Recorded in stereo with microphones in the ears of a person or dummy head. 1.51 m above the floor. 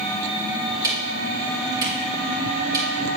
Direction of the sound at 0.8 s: 25° right (ahead or behind).